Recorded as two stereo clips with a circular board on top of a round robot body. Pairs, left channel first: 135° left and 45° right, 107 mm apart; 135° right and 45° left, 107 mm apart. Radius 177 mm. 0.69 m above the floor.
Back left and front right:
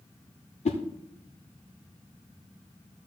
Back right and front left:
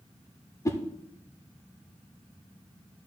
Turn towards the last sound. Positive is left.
turn(degrees=160)